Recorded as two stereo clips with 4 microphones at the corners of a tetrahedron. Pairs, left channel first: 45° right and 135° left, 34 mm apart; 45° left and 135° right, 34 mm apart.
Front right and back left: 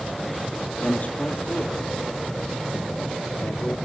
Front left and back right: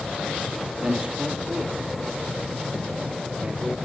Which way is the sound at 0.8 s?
75° right.